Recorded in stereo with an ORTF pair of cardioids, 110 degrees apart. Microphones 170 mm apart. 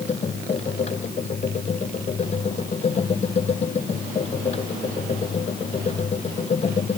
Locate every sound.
0.0 s a machine running: 40° left